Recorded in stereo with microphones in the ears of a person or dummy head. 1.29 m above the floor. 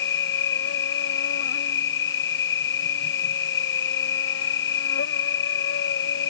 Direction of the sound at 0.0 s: 70° left (ahead or behind).